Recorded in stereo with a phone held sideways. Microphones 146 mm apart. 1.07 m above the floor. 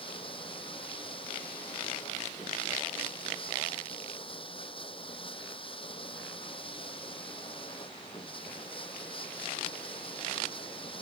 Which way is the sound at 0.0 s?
35° left (ahead or behind).